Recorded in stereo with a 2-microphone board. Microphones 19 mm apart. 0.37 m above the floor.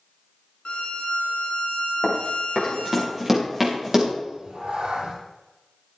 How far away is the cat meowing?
About 3.5 m.